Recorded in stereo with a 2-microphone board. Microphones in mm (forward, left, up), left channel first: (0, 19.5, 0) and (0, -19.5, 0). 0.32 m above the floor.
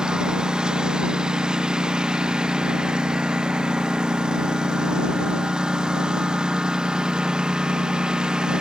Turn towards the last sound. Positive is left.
turn(degrees=-20)  # may be behind; listen again after turning